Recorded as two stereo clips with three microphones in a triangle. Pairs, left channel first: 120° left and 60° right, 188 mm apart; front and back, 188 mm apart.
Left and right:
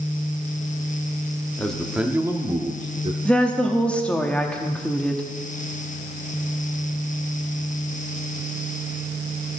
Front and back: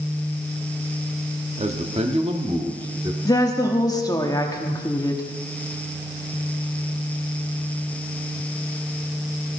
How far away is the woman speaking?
About 1.0 m.